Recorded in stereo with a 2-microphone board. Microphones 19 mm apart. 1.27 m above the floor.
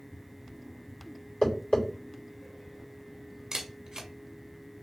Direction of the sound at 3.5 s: 35° right (ahead or behind).